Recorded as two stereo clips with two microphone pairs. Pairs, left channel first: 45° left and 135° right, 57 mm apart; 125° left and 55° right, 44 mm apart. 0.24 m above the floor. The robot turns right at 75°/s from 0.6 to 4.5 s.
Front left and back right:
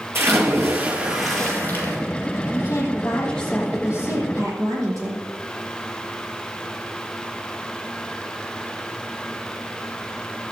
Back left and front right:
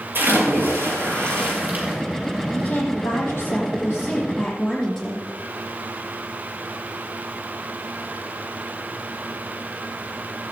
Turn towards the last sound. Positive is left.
turn(degrees=-150)